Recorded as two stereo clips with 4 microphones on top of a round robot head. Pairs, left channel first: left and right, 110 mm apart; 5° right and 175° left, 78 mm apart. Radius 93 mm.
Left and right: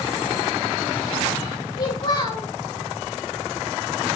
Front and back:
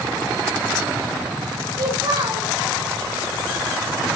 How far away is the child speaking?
About 3 m.